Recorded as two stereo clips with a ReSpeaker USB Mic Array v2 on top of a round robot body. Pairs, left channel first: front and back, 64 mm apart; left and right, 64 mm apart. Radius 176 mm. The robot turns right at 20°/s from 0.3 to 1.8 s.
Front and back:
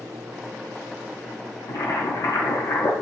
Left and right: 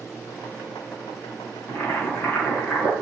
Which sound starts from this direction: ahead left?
Boiling, at 1.7 s.